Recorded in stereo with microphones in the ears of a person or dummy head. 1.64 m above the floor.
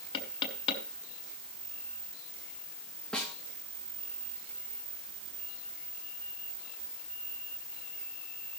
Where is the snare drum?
Centre (ahead or behind), 2 m.